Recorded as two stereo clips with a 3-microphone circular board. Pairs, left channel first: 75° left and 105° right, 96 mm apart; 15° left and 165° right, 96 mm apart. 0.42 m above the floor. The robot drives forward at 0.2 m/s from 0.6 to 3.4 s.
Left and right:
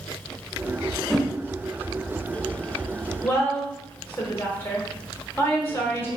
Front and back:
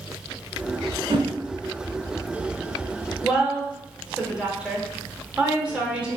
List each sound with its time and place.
1.1 s a whoosh: 165° left, 0.6 m
3.2 s a woman speaking: 120° left, 1.0 m